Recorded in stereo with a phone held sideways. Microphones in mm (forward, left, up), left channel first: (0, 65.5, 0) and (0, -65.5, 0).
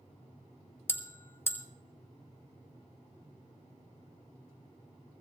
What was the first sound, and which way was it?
A bell, 15° left (ahead or behind).